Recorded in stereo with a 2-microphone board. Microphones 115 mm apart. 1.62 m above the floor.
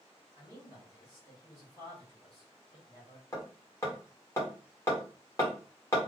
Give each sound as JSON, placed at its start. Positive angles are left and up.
{"t": 0.3, "sound": "a man speaking", "side_deg": 40, "distance_m": 1.7}
{"t": 3.3, "sound": "hammering", "side_deg": 25, "distance_m": 1.3}